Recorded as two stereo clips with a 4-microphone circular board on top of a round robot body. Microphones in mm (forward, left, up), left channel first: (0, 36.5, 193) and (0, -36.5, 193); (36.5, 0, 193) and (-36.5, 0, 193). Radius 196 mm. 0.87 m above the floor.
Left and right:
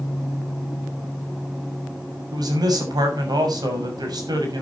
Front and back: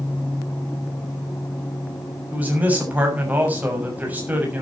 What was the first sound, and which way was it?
A man speaking, 110° right.